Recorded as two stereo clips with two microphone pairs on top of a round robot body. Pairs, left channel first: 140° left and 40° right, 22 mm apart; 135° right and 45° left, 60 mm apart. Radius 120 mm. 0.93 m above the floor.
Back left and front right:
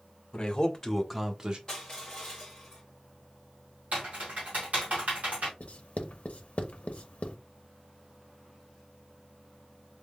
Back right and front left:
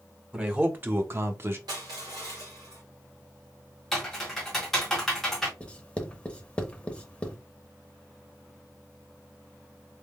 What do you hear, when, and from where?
0.3 s a man speaking: 105° left, 1.6 m; by 1.6 s 10° left, 1.1 m
1.7 s crushing: 65° left, 0.8 m
3.9 s typing on a keyboard: 55° right, 1.3 m
5.6 s writing: 150° left, 0.8 m